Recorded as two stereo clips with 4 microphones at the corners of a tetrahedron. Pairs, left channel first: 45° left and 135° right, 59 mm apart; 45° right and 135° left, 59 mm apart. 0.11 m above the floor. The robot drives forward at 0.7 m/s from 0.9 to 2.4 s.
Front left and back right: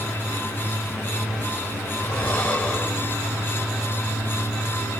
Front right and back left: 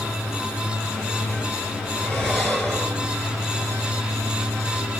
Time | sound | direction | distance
2.0 | breathing | 15° left | 1.5 m